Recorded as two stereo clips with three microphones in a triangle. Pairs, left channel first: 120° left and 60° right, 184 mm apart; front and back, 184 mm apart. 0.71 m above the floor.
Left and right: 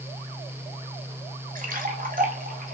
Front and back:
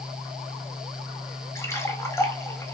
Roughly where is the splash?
Right.